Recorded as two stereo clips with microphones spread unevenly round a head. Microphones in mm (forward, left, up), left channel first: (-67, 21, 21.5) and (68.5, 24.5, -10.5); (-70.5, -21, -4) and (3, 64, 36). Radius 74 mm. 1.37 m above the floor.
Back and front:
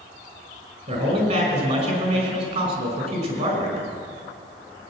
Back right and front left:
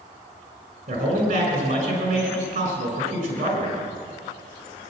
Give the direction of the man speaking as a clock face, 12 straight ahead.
11 o'clock.